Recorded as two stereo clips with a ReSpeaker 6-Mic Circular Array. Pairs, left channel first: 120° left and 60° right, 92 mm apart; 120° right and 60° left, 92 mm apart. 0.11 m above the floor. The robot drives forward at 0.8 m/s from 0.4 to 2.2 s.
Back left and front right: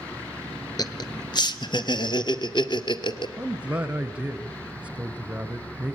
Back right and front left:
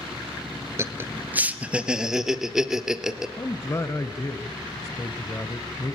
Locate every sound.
0.8 s laughter: 105° left, 1.5 m; by 3.3 s 145° left, 2 m
3.4 s a man speaking: 125° right, 1.3 m